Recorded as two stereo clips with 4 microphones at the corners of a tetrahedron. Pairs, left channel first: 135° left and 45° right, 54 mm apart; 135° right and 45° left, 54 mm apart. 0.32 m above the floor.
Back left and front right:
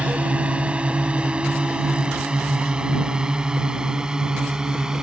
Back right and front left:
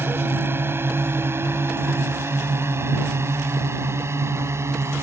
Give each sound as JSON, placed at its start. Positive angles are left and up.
{"t": 0.0, "sound": "a drone", "azimuth_deg": 15}